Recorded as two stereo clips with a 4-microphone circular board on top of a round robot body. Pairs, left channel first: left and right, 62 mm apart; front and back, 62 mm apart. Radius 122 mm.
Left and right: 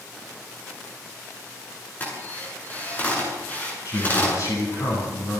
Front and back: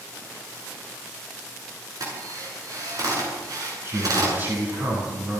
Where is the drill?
155° left, 9.5 m.